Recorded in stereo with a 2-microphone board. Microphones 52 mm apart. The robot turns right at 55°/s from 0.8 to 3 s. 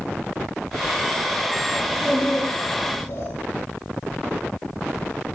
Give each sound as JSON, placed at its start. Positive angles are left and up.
{"t": 1.8, "sound": "a child speaking", "azimuth_deg": -10, "distance_m": 8.0}